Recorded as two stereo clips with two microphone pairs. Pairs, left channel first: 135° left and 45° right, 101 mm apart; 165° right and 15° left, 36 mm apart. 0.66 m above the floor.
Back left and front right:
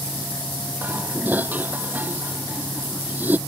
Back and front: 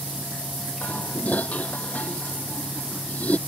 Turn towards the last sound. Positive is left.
turn(degrees=-120)